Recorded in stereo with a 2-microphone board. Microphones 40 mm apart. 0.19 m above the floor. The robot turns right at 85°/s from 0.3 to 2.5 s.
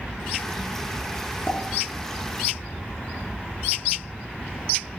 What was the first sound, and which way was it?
A pop, 50° left (ahead or behind).